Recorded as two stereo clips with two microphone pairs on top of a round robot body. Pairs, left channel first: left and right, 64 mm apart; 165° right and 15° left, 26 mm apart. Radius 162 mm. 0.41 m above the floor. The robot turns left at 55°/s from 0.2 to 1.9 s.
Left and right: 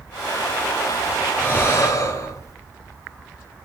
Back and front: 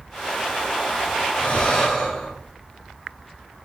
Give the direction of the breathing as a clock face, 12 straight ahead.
7 o'clock.